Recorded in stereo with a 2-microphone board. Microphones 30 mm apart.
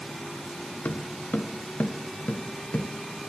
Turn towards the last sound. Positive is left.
turn(degrees=30)  # may be behind; listen again after turning